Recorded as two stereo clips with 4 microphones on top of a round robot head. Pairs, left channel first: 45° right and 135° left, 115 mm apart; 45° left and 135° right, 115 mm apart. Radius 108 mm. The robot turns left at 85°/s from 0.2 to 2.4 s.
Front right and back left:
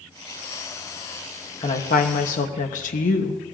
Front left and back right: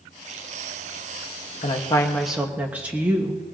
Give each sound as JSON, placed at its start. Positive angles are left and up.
{"t": 1.6, "sound": "a woman speaking", "azimuth_deg": 10, "distance_m": 1.0}